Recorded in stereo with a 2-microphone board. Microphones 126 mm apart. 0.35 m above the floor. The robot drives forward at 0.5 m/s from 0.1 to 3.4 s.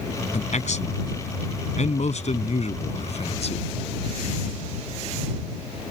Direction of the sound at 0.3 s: 70° left (ahead or behind).